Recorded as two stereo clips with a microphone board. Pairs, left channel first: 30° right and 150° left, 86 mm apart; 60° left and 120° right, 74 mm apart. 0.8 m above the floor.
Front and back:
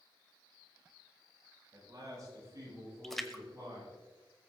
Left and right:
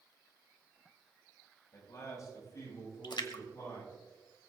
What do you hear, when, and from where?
1.7 s a man speaking: 105° left, 8 m; by 3.9 s 100° left, 11 m
3.0 s a splash: 55° left, 1.3 m